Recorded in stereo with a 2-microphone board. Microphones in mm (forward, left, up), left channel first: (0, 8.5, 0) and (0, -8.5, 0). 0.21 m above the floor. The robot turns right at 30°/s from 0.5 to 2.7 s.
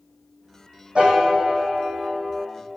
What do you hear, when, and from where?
0.9 s a piano: 90° right, 2 m; by 2.5 s 45° right, 2 m